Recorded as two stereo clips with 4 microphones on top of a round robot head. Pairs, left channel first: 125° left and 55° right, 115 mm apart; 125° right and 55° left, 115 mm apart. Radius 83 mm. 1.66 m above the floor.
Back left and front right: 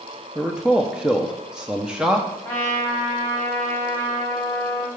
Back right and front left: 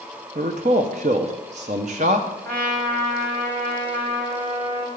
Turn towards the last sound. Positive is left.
turn(degrees=55)